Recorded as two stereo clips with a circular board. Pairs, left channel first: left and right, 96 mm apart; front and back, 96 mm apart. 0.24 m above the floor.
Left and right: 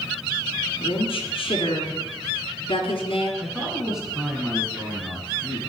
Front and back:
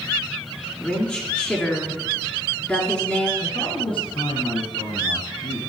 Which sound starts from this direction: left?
A woman speaking, at 0.8 s.